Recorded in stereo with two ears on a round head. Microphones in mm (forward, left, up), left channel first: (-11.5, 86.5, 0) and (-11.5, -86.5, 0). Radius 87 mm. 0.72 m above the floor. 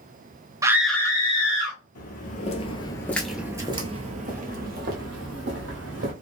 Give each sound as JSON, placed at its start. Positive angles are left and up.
{"t": 0.6, "sound": "a scream", "side_deg": -15, "distance_m": 0.5}
{"t": 1.9, "sound": "footsteps", "side_deg": 50, "distance_m": 1.0}